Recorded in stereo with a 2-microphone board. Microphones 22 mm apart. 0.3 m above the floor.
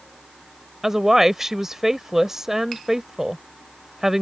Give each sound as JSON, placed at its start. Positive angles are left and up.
{"t": 0.8, "sound": "a woman speaking", "side_deg": -20}